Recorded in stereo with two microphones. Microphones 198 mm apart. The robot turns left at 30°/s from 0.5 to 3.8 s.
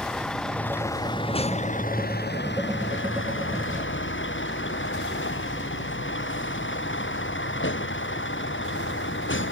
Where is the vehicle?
175° left; by 9.5 s 75° left.